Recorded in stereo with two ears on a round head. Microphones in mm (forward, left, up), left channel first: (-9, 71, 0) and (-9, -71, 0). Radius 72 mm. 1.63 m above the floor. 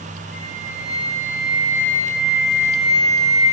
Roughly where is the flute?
Left.